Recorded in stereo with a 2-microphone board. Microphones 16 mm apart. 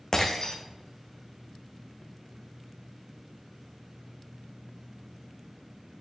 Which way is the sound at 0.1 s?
35° left (ahead or behind).